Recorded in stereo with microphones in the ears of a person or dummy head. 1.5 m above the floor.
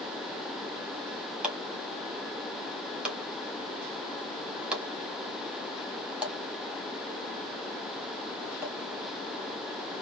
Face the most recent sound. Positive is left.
turn(degrees=-10)  # may be behind; listen again after turning